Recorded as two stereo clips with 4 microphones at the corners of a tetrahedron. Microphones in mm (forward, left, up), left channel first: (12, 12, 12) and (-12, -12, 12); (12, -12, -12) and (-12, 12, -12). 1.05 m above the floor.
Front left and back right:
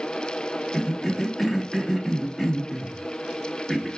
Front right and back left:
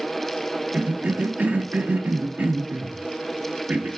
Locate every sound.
0.7 s a cough: 130° left, 0.6 m